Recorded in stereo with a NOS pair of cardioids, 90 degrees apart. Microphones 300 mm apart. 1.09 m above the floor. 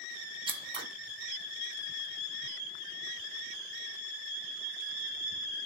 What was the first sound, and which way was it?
Scissors, 20° right.